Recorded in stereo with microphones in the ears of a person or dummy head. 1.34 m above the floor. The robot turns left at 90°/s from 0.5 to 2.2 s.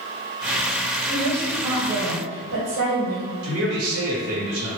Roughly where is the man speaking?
Right.